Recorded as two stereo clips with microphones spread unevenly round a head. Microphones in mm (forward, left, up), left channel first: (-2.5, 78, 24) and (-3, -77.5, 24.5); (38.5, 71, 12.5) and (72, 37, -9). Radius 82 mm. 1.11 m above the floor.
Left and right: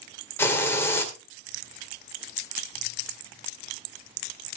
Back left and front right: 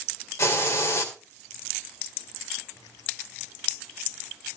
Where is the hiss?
165° left, 2.5 m.